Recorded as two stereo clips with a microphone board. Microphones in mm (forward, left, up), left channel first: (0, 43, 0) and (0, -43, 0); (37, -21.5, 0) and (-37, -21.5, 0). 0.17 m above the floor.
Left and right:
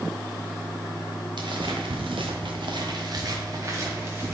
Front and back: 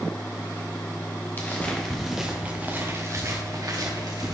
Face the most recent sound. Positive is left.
turn(degrees=-155)